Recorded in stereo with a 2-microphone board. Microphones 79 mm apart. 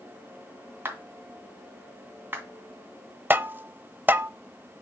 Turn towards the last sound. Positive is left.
turn(degrees=-25)  # may be behind; listen again after turning